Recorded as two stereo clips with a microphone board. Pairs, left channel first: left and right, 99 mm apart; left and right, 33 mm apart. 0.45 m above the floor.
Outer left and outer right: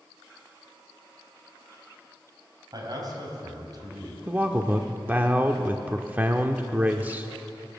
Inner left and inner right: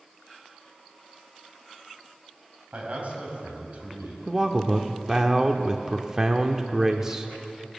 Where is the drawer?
I don't hear a drawer.